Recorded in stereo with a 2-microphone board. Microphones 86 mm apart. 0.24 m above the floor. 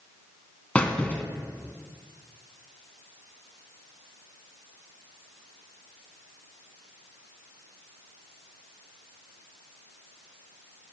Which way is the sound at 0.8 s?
15° left (ahead or behind).